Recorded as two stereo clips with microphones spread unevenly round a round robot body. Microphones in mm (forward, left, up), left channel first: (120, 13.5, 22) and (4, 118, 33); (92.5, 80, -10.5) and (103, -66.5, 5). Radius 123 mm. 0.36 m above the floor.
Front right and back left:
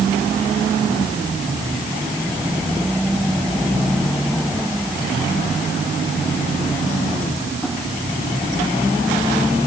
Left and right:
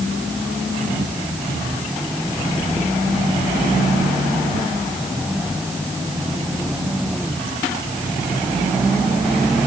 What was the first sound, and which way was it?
Only background noise.